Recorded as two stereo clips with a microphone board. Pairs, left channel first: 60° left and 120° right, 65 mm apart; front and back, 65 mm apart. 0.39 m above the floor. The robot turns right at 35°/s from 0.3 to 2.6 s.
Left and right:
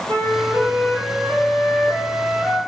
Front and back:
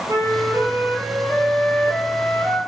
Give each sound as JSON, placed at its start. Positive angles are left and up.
{"t": 0.1, "sound": "a flute", "azimuth_deg": -135, "distance_m": 1.1}